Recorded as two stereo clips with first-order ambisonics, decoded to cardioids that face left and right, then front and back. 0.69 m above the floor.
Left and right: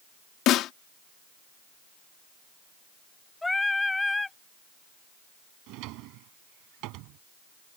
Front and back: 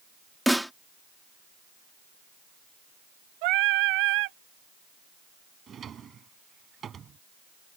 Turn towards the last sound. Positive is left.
turn(degrees=-115)